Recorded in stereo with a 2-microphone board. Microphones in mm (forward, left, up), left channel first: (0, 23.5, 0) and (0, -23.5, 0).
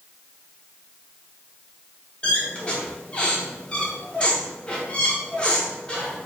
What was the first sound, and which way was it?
A squeak, 20° left (ahead or behind).